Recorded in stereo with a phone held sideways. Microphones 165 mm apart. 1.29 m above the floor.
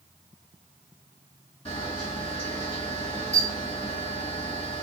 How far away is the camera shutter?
About 1.8 m.